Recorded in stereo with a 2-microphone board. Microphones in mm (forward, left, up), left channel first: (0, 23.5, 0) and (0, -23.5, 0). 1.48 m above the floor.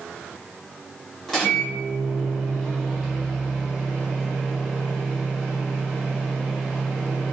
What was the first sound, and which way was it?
A microwave, 5° left (ahead or behind).